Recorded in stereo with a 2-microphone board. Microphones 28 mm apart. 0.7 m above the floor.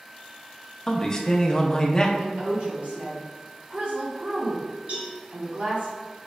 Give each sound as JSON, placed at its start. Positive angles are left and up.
{"t": 0.9, "sound": "a man speaking", "side_deg": 25, "distance_m": 0.6}
{"t": 2.2, "sound": "a woman speaking", "side_deg": -60, "distance_m": 1.6}
{"t": 4.9, "sound": "a cowbell", "side_deg": -65, "distance_m": 1.9}